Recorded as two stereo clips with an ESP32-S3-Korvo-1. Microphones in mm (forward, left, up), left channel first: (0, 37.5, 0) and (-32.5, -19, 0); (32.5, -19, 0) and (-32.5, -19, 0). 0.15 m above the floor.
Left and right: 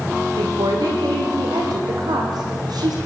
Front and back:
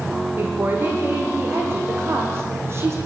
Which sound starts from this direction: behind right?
A woman speaking, at 0.4 s.